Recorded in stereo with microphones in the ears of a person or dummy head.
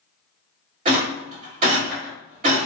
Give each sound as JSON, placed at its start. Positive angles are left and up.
{"t": 0.8, "sound": "a rattle", "side_deg": -40, "distance_m": 1.7}